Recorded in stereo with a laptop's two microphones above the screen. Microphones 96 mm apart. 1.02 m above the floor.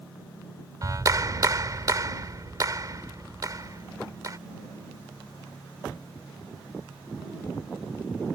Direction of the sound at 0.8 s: 45° right (ahead or behind).